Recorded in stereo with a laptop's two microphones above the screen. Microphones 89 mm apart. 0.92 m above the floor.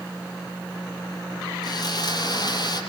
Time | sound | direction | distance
1.6 | sawing | 50° left (ahead or behind) | 7.5 m